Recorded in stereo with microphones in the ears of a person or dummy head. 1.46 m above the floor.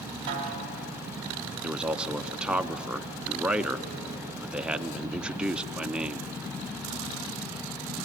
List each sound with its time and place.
0.3 s a snare drum: 30° right (ahead or behind), 2.5 m
1.6 s a man speaking: 5° right (ahead or behind), 0.5 m